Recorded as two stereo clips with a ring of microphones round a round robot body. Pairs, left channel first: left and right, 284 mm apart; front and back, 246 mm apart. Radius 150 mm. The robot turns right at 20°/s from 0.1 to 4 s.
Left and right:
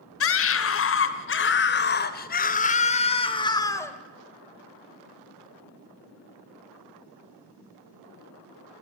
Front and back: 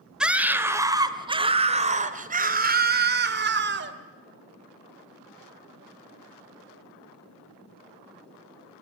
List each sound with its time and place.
0.2 s a scream: 95° left, 2 m; by 3.9 s 170° left, 2 m